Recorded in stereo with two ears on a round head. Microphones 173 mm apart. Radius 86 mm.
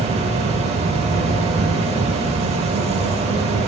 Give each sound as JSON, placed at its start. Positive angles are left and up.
{"t": 0.0, "sound": "an insect", "side_deg": -35, "distance_m": 0.8}